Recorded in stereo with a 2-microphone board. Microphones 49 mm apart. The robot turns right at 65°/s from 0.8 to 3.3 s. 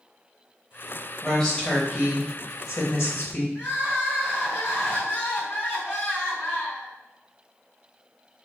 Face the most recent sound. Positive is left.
turn(degrees=60)  # may be behind; listen again after turning